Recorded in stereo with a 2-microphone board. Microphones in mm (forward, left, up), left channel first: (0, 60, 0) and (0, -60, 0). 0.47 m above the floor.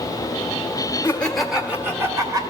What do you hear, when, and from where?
1.0 s laughter: 20° left (ahead or behind), 1.3 m; by 2.4 s 30° right (ahead or behind), 2.0 m